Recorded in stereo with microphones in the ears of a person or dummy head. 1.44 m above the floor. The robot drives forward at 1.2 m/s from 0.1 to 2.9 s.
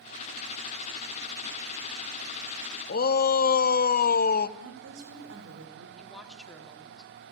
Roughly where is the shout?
Left.